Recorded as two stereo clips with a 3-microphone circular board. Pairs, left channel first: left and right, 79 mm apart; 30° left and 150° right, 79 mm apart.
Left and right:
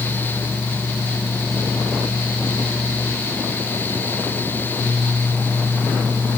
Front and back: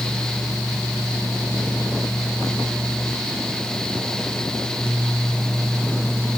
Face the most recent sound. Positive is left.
No sound to turn to.